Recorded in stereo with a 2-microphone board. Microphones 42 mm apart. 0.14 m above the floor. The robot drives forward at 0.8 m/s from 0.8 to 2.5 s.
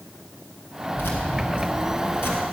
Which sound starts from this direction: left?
Keys jangling, at 0.9 s.